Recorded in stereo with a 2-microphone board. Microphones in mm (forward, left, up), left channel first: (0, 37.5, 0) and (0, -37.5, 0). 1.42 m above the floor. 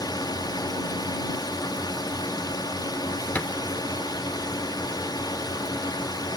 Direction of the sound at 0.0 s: 60° left (ahead or behind).